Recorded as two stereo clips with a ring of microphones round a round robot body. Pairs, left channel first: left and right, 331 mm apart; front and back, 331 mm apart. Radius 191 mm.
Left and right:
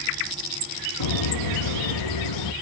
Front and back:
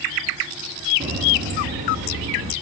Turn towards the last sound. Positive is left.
turn(degrees=110)